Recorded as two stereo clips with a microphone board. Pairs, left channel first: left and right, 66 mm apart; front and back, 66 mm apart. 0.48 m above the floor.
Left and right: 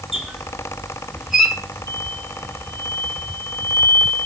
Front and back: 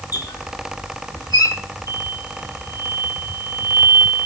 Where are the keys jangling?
No keys jangling in this recording.